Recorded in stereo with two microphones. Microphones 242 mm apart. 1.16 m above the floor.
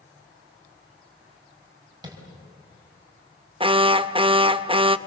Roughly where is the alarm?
Right.